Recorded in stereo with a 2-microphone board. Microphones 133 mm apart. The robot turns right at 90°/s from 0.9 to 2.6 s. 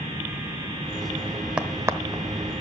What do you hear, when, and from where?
1.6 s a crack: 10° right (ahead or behind), 0.9 m; by 2.2 s 30° right (ahead or behind), 0.9 m